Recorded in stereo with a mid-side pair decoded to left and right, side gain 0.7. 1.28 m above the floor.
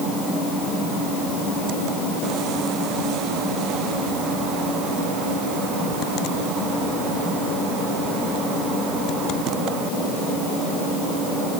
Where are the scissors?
I don't hear scissors.